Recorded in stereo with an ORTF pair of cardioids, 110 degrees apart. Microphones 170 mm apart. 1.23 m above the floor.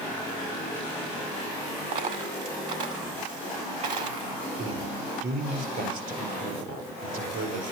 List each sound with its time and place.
1.9 s a dropped coin: 55° right, 1.6 m
4.6 s a man speaking: 65° right, 5 m